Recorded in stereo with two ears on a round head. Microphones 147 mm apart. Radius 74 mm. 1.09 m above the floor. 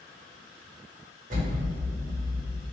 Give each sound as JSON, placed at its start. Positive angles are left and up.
{"t": 1.3, "sound": "an explosion", "side_deg": -45, "distance_m": 1.4}